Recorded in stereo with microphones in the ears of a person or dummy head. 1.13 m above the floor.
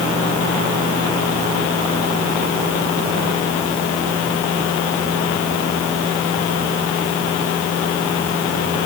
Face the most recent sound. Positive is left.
No sound to turn to.